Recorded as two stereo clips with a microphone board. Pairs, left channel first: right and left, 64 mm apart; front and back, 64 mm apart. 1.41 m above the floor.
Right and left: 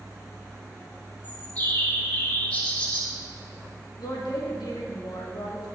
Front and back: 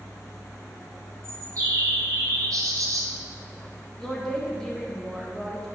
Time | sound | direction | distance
1.2 | a bird | 155° right | 3 m
4.0 | a woman speaking | 85° right | 1.9 m